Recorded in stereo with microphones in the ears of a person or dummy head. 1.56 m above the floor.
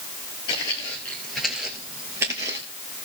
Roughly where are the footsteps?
Centre.